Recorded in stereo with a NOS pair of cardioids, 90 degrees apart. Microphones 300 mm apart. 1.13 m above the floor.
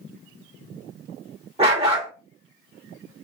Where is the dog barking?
20° right, 1.6 m.